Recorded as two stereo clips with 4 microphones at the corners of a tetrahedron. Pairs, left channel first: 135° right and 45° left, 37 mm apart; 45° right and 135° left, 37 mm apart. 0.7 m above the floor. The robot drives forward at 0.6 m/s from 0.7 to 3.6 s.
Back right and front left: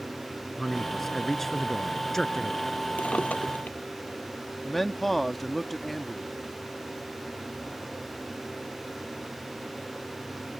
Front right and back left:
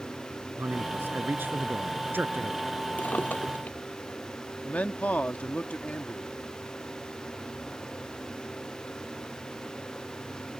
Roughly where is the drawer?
Right.